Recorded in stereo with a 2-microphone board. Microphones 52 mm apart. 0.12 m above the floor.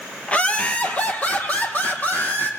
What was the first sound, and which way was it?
Laughter, 20° left (ahead or behind).